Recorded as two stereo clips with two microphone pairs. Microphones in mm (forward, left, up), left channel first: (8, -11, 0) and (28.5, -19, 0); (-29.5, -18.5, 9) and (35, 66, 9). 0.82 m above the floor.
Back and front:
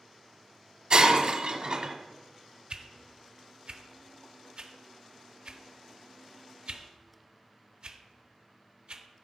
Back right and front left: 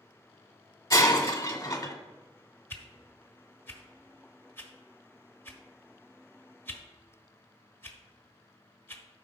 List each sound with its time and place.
0.9 s breaking glass: 65° right, 1.2 m
2.7 s a whoosh: 60° right, 0.9 m